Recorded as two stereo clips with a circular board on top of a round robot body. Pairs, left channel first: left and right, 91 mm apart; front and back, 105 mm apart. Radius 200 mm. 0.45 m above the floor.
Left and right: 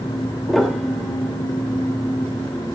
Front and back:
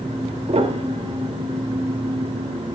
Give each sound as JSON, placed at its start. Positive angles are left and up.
{"t": 0.5, "sound": "a piano", "azimuth_deg": 180, "distance_m": 2.5}